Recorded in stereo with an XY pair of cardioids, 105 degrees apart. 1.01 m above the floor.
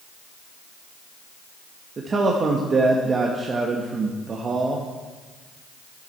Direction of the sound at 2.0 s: 40° right.